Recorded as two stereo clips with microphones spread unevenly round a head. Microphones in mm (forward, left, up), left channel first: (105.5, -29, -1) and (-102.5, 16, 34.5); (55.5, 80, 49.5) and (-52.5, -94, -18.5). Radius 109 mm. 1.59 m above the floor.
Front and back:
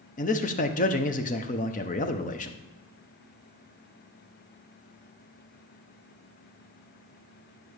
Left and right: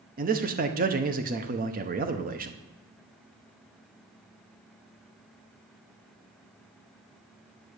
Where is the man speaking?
70° right, 0.9 m.